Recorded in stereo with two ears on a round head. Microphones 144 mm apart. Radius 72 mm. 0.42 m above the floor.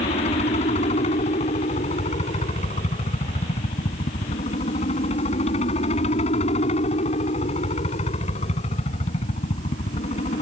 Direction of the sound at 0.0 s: 40° left (ahead or behind).